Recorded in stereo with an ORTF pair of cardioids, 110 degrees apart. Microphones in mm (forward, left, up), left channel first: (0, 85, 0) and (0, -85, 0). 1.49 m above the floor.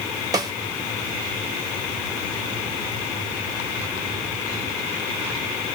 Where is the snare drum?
20° right, 0.9 m.